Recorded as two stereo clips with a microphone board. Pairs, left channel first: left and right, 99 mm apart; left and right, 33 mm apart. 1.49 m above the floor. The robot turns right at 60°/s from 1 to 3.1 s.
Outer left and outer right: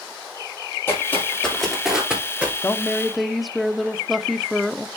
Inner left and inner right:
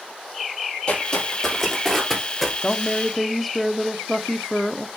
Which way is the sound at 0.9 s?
25° left (ahead or behind).